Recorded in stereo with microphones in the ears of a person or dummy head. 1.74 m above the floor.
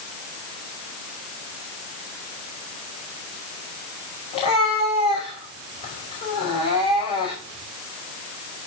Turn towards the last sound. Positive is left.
turn(degrees=30)  # may be behind; listen again after turning